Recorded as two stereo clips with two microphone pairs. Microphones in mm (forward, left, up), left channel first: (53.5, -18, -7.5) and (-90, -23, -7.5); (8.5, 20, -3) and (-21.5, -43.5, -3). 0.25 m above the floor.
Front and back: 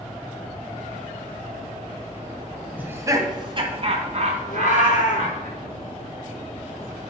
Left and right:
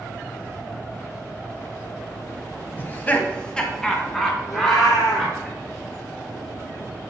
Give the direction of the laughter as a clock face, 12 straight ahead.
8 o'clock.